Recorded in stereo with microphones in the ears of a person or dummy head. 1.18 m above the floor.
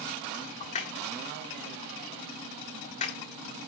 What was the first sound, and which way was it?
A crack, 40° left (ahead or behind).